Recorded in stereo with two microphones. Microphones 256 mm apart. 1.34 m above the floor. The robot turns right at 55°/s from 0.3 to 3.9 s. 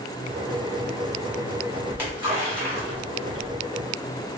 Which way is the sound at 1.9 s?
5° right (ahead or behind).